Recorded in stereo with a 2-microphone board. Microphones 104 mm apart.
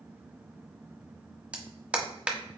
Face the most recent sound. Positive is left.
turn(degrees=-10)  # may be behind; listen again after turning